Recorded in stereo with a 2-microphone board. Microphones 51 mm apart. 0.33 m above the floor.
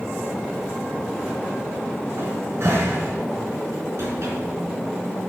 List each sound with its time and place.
2.2 s a cupboard door: 60° right (ahead or behind), 3.5 m